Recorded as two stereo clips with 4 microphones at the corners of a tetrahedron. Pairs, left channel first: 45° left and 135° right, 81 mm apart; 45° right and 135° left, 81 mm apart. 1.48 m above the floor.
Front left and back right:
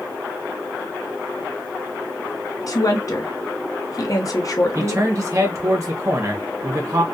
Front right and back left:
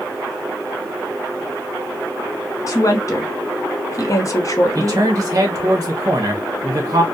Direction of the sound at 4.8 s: Straight behind.